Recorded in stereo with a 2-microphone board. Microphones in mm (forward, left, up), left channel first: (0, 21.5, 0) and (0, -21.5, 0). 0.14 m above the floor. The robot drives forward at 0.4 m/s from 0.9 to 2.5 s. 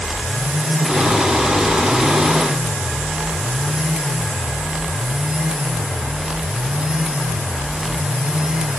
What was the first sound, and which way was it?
Only background noise.